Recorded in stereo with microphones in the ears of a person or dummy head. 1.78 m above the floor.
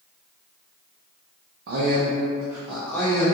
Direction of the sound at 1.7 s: 65° right (ahead or behind).